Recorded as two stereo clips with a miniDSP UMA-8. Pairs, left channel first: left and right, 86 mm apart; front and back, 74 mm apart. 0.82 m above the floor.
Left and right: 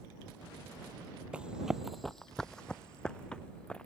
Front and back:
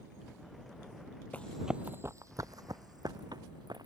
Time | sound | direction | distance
1.3 | running footsteps | 30° right | ?